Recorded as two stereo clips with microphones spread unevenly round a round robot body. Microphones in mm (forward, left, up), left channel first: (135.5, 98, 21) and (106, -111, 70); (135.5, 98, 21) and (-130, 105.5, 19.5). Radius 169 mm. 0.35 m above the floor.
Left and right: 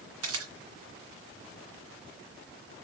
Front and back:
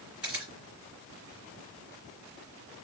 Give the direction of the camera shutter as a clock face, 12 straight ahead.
3 o'clock.